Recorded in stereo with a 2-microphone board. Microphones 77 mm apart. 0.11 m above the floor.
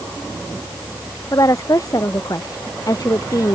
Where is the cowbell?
No cowbell in this recording.